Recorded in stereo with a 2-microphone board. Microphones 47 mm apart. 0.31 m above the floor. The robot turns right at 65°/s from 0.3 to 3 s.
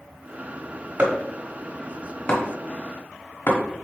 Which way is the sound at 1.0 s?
35° right (ahead or behind).